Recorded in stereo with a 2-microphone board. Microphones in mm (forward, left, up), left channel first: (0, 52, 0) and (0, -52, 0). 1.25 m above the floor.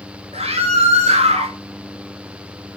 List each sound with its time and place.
0.3 s a scream: 75° right (ahead or behind), 4.5 m